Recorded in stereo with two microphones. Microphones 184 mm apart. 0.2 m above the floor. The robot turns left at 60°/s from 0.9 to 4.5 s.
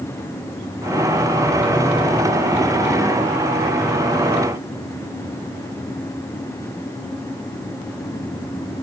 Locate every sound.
Only background noise.